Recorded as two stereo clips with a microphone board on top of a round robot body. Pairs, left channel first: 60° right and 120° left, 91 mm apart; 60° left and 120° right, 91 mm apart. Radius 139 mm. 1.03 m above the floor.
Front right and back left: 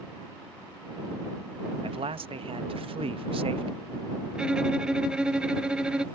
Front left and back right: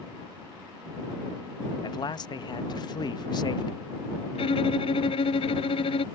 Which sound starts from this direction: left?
A man speaking, at 1.8 s.